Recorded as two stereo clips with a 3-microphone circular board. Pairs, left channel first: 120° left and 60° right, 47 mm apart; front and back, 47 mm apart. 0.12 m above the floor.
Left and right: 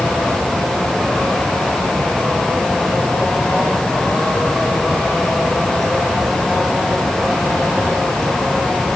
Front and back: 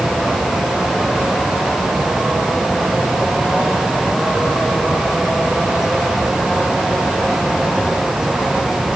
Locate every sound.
Only background noise.